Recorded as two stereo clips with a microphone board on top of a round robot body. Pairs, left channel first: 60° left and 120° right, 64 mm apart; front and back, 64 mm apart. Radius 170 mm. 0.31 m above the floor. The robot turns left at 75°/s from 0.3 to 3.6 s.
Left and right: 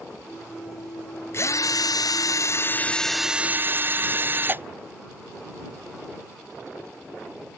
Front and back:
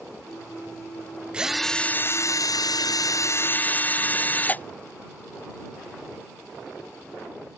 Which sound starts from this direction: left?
A drill, at 1.3 s.